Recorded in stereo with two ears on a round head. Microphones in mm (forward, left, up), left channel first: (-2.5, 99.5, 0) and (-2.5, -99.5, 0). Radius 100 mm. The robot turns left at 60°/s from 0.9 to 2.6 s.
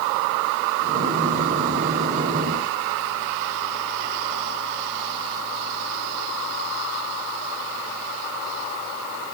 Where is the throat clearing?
I don't hear throat clearing.